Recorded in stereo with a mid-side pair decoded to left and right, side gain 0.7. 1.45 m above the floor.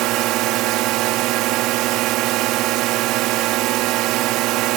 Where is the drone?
60° right.